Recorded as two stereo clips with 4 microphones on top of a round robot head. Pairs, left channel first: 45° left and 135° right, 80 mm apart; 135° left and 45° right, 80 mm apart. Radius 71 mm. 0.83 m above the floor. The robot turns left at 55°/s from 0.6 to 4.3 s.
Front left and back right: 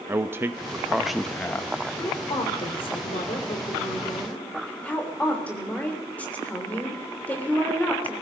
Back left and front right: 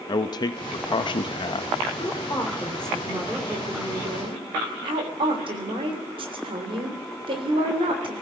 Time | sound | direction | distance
0.1 | a man speaking | 165° left | 0.7 m
2.0 | a woman speaking | 100° left | 3 m